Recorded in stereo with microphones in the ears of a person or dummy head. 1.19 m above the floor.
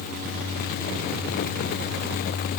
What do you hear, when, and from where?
Only background noise.